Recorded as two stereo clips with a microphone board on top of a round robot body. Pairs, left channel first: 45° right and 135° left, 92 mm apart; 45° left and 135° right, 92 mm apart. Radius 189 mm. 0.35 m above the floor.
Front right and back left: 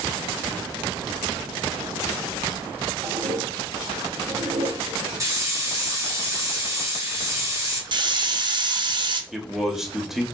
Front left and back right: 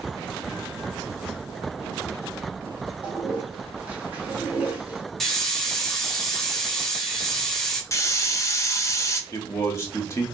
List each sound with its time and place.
3.0 s a toilet flushing: 150° left, 1.3 m
5.2 s a hiss: 130° left, 1.7 m
7.9 s a hiss: 100° left, 0.7 m
9.3 s a man speaking: 55° left, 1.1 m